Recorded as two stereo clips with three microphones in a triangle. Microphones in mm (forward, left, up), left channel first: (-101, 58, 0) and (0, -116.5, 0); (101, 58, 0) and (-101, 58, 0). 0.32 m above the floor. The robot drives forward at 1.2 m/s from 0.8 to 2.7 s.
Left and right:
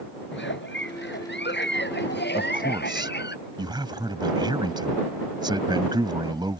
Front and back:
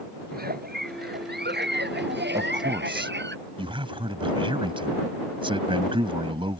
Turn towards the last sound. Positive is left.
turn(degrees=-125)